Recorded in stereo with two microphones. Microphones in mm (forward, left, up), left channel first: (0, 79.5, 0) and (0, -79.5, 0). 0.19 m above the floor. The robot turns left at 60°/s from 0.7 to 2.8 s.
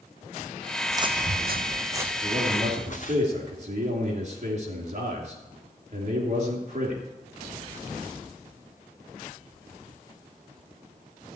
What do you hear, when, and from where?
0.9 s footsteps: 15° right (ahead or behind), 0.7 m; by 3.2 s 55° left (ahead or behind), 1.9 m
2.2 s a man speaking: 20° right, 3 m; by 7.0 s 55° right, 3 m